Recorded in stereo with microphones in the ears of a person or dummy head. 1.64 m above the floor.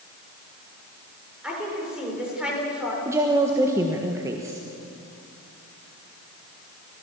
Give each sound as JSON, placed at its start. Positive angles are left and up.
{"t": 1.4, "sound": "a woman speaking", "side_deg": -5, "distance_m": 6.5}
{"t": 3.0, "sound": "a woman speaking", "side_deg": -20, "distance_m": 1.4}